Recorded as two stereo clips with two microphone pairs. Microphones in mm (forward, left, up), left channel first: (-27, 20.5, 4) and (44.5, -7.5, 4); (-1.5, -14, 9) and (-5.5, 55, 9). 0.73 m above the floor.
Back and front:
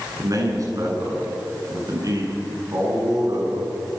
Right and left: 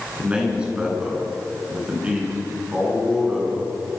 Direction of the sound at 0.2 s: 20° left.